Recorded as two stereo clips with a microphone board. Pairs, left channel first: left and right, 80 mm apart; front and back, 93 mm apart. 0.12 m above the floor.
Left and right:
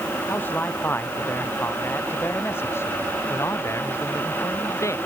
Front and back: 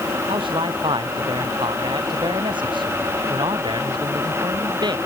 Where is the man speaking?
155° left; by 5.0 s 145° left.